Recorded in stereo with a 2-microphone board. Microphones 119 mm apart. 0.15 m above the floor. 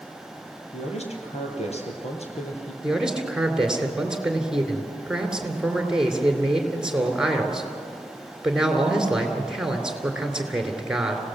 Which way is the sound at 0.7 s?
65° left (ahead or behind).